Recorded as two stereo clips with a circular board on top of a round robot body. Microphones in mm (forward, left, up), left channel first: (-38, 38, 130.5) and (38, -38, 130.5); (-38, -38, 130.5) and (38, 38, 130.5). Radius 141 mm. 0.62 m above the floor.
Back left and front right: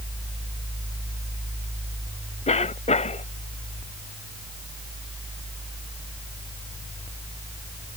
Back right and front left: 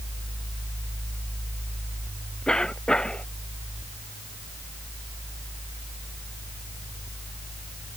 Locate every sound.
2.5 s a cough: 140° left